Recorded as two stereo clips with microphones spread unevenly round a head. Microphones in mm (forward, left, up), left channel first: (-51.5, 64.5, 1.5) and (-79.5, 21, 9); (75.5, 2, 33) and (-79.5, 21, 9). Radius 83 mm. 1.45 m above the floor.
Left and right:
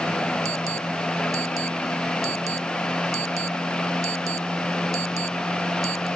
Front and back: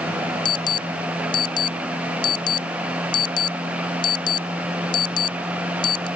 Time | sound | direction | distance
0.5 | an alarm | 70° right | ?